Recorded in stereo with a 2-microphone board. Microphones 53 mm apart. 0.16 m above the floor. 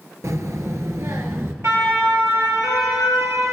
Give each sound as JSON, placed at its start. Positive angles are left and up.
{"t": 0.2, "sound": "a child speaking", "side_deg": -65, "distance_m": 1.7}
{"t": 1.6, "sound": "a siren", "side_deg": -70, "distance_m": 3.0}